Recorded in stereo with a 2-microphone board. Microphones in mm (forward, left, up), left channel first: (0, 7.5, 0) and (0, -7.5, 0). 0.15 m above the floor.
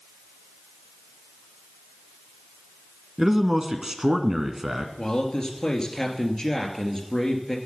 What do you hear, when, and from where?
3.2 s a man speaking: 30° right (ahead or behind), 1.3 m
5.0 s a man speaking: 30° left (ahead or behind), 2 m